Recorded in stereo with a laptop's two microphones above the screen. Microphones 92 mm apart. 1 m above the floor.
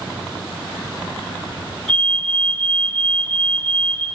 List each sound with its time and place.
1.9 s a fire alarm: 80° right, 7.5 m